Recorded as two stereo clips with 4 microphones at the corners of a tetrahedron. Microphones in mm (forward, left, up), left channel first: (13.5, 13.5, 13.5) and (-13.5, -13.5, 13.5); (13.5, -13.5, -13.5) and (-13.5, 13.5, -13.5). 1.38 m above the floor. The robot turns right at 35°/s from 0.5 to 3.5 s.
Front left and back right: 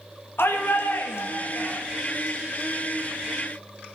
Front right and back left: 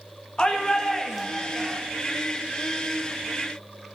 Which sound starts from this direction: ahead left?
A shout, at 0.4 s.